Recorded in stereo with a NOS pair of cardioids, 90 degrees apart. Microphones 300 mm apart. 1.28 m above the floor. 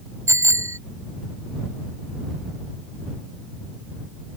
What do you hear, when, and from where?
0.3 s a bicycle bell: 10° right